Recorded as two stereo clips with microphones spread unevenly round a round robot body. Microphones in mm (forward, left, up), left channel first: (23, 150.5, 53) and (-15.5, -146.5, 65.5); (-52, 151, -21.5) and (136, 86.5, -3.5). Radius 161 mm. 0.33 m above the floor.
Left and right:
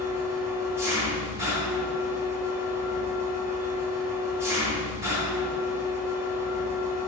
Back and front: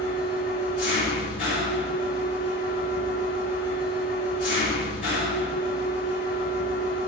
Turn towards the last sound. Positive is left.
turn(degrees=180)